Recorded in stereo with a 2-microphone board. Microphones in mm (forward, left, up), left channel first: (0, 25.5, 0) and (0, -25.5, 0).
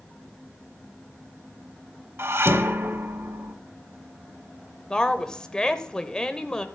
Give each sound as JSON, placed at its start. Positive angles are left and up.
{"t": 2.2, "sound": "dishes clattering", "side_deg": -55, "distance_m": 0.9}
{"t": 4.9, "sound": "a woman speaking", "side_deg": 15, "distance_m": 0.9}